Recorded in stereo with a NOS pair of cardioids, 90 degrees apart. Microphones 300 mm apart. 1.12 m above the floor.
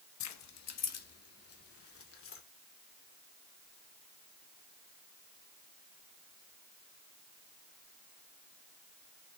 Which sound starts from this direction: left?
Keys jangling, at 0.2 s.